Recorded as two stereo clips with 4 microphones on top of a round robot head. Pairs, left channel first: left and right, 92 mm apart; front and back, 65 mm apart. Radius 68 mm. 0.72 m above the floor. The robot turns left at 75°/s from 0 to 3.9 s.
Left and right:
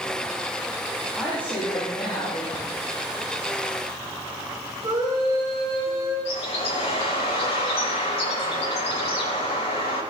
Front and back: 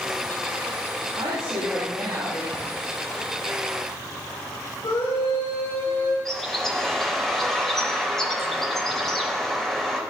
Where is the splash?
85° left, 6 m; by 2.6 s 80° left, 6 m.